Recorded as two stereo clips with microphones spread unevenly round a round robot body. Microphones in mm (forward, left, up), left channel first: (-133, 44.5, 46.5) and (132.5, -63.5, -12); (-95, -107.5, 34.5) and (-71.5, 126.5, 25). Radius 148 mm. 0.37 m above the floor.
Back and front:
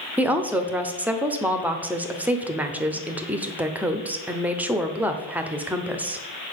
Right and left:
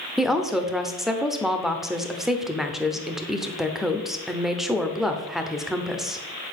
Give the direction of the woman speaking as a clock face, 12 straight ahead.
12 o'clock.